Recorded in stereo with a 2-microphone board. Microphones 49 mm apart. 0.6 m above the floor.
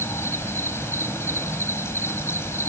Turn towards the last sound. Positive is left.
turn(degrees=65)  # may be behind; listen again after turning